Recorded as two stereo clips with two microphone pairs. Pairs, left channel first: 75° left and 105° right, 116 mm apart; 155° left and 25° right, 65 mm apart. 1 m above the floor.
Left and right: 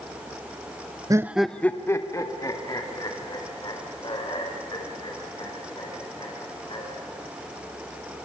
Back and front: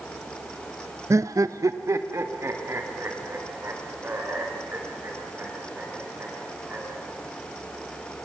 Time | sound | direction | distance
1.1 | laughter | 50° right | 0.6 m